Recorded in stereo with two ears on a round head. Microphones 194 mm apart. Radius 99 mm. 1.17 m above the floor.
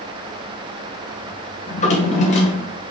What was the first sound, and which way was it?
A drawer, 35° left (ahead or behind).